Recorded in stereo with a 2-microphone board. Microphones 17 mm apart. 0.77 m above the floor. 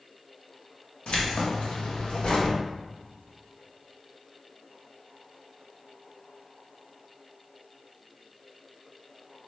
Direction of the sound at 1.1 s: 70° left (ahead or behind).